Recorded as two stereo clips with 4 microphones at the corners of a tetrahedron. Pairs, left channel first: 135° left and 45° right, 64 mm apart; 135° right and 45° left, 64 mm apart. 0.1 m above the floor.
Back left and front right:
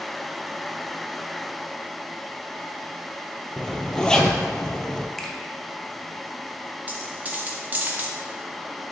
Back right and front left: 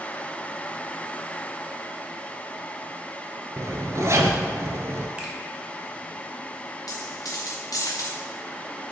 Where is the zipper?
60° left, 0.7 m.